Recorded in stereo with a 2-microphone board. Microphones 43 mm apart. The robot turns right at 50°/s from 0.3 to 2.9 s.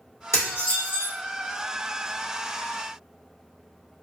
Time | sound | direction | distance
0.3 | dishes clattering | 80° left | 1.8 m